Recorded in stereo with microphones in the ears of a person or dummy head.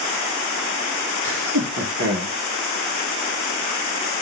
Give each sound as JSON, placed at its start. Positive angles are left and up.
{"t": 1.2, "sound": "laughter", "side_deg": -80, "distance_m": 1.8}